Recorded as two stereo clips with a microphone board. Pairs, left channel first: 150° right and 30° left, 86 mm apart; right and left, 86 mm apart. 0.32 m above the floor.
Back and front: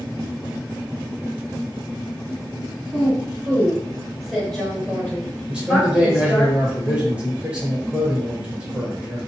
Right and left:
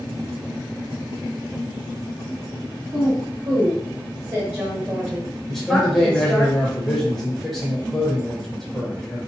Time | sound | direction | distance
2.9 | a woman speaking | 90° left | 1.7 m
5.5 | a man speaking | 15° right | 0.8 m